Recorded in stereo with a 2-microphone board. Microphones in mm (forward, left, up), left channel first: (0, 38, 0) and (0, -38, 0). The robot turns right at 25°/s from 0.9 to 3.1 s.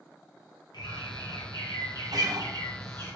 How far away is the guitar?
About 0.8 m.